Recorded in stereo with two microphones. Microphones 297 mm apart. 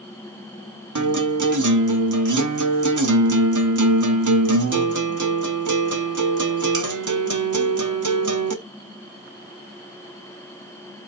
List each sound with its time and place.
0.9 s a guitar: 80° right, 0.6 m